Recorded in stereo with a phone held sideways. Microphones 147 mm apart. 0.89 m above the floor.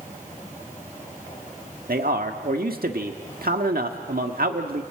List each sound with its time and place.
1.9 s a man speaking: 75° right (ahead or behind), 1.6 m